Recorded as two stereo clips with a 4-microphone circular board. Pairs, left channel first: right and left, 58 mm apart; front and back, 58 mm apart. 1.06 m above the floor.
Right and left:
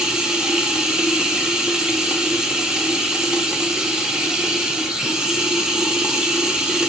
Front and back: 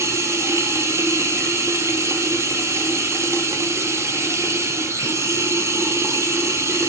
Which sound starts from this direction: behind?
Running water, at 0.0 s.